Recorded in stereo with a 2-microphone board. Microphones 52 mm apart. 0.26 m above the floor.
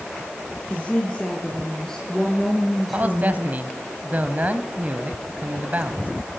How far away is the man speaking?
About 1.6 m.